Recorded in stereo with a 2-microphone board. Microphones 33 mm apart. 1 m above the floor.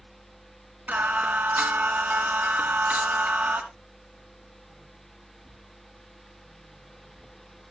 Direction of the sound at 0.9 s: 70° right (ahead or behind).